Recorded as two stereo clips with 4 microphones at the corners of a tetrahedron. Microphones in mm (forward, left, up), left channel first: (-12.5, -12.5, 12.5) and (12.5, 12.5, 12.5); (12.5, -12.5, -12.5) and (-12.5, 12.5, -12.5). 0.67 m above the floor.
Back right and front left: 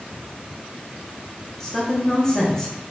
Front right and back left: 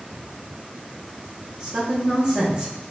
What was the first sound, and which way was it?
A man speaking, 175° left.